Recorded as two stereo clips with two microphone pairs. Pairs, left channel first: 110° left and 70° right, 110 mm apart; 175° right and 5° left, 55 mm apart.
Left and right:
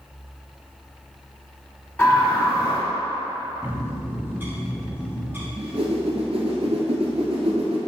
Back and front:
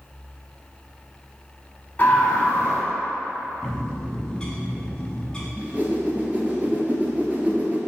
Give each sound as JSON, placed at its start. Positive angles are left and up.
{"t": 2.0, "sound": "a scream", "azimuth_deg": 155, "distance_m": 1.8}
{"t": 3.6, "sound": "a bird", "azimuth_deg": -115, "distance_m": 0.8}
{"t": 5.6, "sound": "a whoosh", "azimuth_deg": -50, "distance_m": 0.9}